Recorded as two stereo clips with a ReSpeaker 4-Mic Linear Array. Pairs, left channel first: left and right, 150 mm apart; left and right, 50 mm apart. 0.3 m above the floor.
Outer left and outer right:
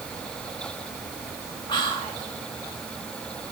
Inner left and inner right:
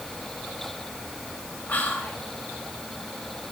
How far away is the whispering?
About 1.4 m.